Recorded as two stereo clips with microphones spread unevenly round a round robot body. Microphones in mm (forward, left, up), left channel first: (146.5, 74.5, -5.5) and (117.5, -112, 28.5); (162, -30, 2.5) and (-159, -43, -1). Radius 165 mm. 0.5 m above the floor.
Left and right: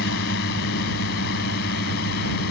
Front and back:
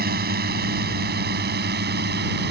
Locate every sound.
0.0 s a drone: 120° left